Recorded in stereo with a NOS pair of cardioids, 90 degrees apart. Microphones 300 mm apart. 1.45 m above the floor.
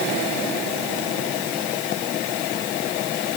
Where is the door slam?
No door slam in this recording.